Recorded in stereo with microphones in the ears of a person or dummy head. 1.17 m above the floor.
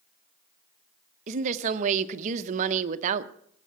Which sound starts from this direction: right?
A woman speaking, at 1.3 s.